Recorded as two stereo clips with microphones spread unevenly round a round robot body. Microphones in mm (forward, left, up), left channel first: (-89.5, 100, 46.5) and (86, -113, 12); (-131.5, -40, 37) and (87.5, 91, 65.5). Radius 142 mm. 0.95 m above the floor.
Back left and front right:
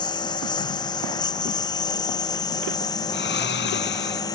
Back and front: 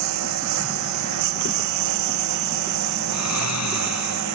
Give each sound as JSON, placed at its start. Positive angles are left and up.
{"t": 0.0, "sound": "a lawn mower", "azimuth_deg": 55}
{"t": 3.1, "sound": "snoring", "azimuth_deg": -175}